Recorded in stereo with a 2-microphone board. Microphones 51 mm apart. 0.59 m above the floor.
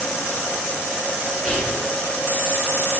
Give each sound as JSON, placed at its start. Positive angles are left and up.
{"t": 1.4, "sound": "whispering", "side_deg": -10, "distance_m": 1.2}